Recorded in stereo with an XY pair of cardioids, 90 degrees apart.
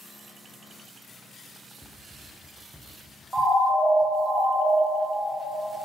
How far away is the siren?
About 3 m.